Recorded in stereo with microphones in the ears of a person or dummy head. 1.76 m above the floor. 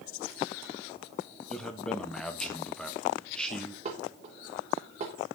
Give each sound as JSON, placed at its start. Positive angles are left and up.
{"t": 1.5, "sound": "a man speaking", "side_deg": 5, "distance_m": 1.2}
{"t": 3.9, "sound": "dishes clattering", "side_deg": -40, "distance_m": 3.0}